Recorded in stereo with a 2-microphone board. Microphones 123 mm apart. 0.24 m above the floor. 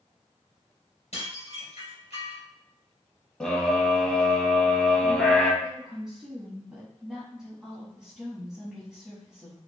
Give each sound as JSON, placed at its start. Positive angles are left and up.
{"t": 1.1, "sound": "dishes clattering", "side_deg": 60, "distance_m": 2.5}
{"t": 3.4, "sound": "a scream", "side_deg": 5, "distance_m": 1.4}
{"t": 5.6, "sound": "a woman speaking", "side_deg": -5, "distance_m": 1.3}